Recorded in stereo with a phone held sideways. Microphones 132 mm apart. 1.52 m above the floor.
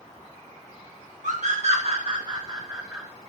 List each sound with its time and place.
1.2 s a scream: 70° right (ahead or behind), 1.5 m; by 3.1 s 15° right (ahead or behind), 1.9 m